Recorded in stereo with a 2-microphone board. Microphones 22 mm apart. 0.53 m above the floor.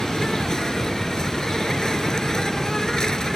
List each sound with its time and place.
0.0 s an insect: 30° left (ahead or behind)